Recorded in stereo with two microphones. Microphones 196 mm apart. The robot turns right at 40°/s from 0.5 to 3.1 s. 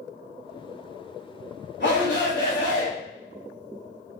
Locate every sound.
1.8 s a shout: 75° left, 2 m; by 2.9 s 120° left, 2 m